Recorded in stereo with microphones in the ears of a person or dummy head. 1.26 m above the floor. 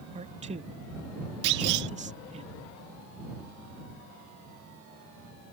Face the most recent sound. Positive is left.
turn(degrees=-60)  # may be behind; listen again after turning